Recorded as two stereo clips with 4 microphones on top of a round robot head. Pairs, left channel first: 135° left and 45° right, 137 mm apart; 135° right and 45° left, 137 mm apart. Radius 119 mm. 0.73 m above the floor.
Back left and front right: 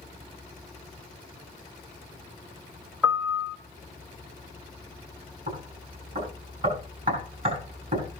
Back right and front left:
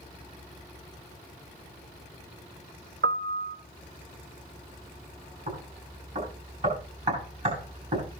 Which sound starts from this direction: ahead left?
A piano, at 3.0 s.